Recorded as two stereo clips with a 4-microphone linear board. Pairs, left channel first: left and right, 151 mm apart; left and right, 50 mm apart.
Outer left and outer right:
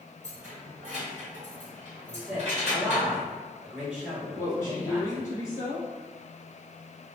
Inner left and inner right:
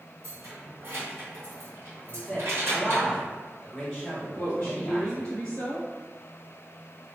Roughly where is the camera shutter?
No camera shutter in this recording.